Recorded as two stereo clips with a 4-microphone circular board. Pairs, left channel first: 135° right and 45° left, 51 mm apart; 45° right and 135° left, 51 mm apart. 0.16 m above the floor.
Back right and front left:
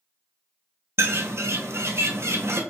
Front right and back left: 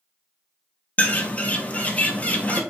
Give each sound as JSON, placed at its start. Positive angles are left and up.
{"t": 1.0, "sound": "a bird", "azimuth_deg": 15, "distance_m": 0.6}